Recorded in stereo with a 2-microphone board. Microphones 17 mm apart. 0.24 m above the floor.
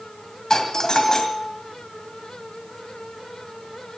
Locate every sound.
0.5 s a doorbell: 35° left (ahead or behind), 2 m